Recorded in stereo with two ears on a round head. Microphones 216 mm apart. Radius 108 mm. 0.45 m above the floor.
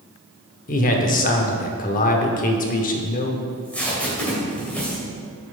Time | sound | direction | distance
0.7 | a man speaking | 35° left (ahead or behind) | 0.9 m
3.5 | tape being pulled | 5° left (ahead or behind) | 2.5 m